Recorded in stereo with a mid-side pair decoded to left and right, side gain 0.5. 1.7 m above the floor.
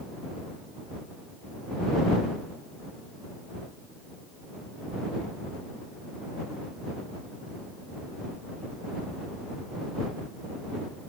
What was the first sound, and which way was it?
Only background noise.